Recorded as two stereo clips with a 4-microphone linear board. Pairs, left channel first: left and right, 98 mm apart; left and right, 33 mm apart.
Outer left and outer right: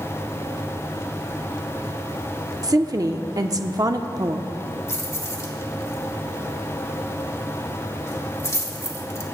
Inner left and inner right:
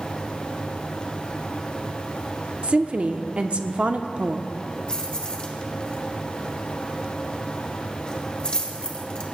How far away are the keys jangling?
About 1.9 m.